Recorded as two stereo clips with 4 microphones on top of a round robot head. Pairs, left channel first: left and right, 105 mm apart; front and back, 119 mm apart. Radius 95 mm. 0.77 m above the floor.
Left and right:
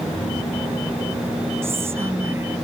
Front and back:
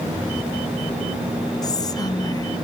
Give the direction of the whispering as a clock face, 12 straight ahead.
1 o'clock.